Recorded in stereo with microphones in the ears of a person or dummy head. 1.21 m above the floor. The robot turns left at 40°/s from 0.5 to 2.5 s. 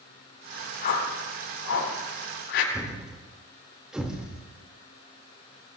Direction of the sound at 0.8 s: 50° left (ahead or behind).